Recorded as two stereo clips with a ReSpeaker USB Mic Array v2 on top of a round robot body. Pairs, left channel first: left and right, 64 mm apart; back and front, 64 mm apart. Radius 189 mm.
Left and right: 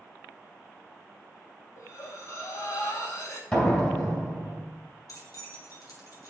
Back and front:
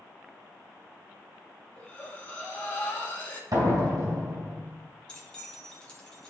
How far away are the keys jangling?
About 1.7 m.